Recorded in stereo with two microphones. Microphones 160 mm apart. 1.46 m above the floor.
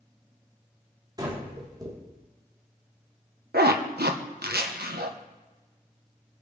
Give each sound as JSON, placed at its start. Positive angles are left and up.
{"t": 1.2, "sound": "breathing", "side_deg": -25, "distance_m": 4.5}
{"t": 3.5, "sound": "a zipper", "side_deg": -75, "distance_m": 1.5}